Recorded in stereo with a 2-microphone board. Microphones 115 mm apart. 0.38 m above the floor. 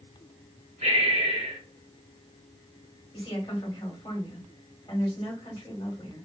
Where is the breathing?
80° right, 1.3 m.